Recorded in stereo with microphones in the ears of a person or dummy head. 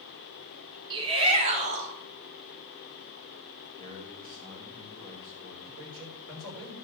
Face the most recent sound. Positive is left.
turn(degrees=-80)